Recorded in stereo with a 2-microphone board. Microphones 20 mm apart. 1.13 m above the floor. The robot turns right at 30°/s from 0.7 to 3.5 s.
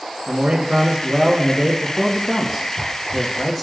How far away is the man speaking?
About 1.4 m.